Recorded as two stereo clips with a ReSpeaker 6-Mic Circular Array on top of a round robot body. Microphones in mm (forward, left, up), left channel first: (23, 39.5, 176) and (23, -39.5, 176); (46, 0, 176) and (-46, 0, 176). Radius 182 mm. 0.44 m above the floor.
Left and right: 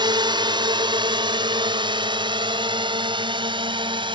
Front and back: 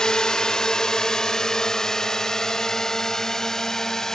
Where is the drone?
80° right; by 4.2 s 85° right.